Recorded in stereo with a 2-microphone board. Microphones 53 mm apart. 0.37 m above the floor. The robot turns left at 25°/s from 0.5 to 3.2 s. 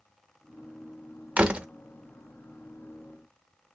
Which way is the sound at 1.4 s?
20° right (ahead or behind).